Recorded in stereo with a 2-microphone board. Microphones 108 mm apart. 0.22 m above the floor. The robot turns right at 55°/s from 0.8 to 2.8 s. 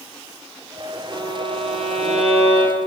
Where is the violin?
135° right, 5.5 m; by 2.8 s 45° right, 5.5 m.